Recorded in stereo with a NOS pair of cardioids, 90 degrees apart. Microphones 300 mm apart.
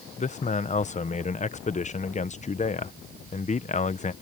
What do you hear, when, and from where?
0.2 s a man speaking: 25° left